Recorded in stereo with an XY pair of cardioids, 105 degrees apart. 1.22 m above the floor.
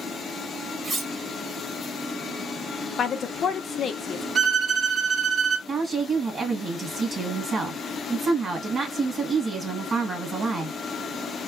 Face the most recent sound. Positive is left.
turn(degrees=-40)